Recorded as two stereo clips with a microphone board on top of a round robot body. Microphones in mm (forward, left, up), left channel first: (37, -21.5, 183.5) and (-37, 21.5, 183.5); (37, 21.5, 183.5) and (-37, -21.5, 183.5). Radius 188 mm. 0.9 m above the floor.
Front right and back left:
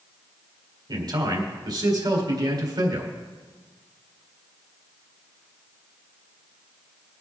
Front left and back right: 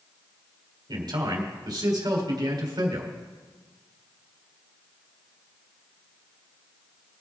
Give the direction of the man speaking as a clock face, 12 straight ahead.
6 o'clock.